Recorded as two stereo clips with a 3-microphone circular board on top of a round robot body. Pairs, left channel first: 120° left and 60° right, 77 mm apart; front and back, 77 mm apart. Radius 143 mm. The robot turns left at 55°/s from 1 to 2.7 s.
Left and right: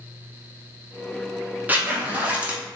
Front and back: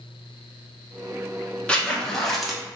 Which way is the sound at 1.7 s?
50° right.